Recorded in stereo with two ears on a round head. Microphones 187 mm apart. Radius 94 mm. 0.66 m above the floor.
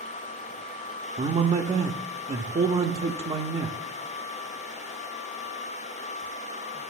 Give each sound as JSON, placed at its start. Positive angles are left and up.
{"t": 1.2, "sound": "a man speaking", "side_deg": -30, "distance_m": 0.6}